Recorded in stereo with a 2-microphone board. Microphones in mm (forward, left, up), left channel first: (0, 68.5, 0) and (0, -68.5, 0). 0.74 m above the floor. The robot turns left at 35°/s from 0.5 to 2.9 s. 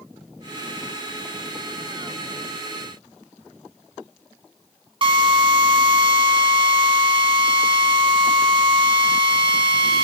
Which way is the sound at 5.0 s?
40° right (ahead or behind).